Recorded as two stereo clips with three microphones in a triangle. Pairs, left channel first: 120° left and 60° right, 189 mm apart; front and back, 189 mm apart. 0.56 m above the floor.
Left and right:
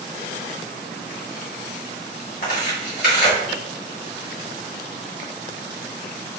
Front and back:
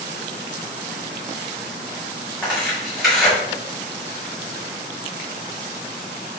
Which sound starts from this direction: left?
Tearing paper, at 2.4 s.